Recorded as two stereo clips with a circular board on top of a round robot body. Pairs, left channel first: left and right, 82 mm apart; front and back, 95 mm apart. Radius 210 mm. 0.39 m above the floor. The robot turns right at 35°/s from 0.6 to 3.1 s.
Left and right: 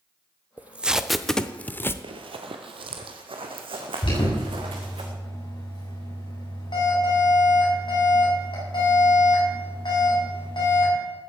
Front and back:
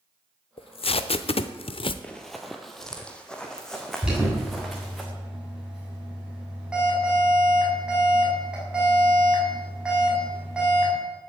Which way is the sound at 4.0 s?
100° left.